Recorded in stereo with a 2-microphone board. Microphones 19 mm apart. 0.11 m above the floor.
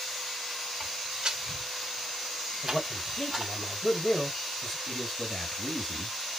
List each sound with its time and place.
0.8 s footsteps: 25° right (ahead or behind), 1.5 m; by 3.5 s 15° right (ahead or behind), 1.5 m
2.6 s a man speaking: 15° left (ahead or behind), 2.5 m
4.9 s a man speaking: 20° left (ahead or behind), 2.5 m